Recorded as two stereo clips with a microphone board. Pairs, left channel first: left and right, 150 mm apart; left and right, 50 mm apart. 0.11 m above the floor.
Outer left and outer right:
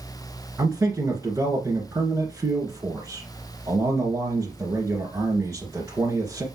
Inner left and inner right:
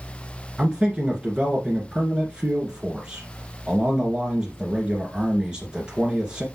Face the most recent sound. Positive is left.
turn(degrees=-20)  # may be behind; listen again after turning